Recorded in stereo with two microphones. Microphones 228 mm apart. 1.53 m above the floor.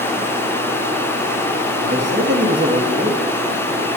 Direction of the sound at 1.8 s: 50° right (ahead or behind).